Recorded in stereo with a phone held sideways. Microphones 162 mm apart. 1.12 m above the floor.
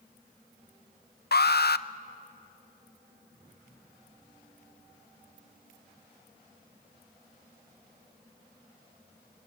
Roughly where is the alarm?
Left.